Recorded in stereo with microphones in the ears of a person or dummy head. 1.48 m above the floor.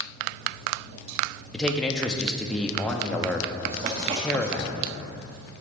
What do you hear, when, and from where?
1.5 s a man speaking: 5° left (ahead or behind), 0.7 m
3.6 s writing: 30° right (ahead or behind), 0.9 m